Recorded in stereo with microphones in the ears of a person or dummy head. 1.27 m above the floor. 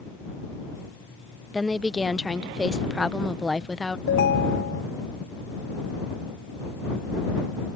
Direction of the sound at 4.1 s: 65° left (ahead or behind).